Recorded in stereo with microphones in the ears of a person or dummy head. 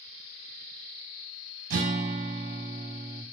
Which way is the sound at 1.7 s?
50° right (ahead or behind).